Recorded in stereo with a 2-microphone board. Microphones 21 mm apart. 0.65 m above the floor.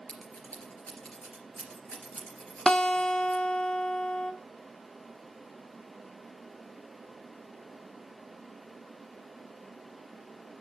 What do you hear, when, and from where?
0.1 s scissors: 75° left (ahead or behind), 3 m
2.7 s a guitar: 50° left (ahead or behind), 0.9 m